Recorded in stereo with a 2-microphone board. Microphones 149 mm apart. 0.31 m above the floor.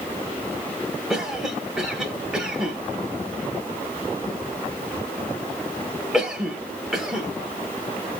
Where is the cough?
5° right (ahead or behind), 1.1 m.